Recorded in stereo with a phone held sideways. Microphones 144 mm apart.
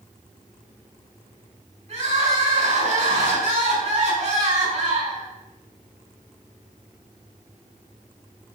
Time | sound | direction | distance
1.9 | crying | 50° right (ahead or behind) | 6 m